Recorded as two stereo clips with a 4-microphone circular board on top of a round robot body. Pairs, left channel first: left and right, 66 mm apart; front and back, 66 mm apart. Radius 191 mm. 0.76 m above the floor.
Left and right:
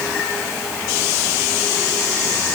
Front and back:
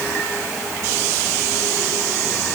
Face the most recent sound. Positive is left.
No sound to turn to.